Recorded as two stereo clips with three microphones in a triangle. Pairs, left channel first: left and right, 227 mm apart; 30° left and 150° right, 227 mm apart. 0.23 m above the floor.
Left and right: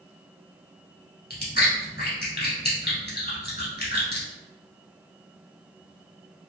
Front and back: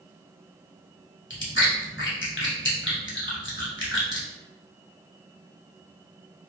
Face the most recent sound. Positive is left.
turn(degrees=50)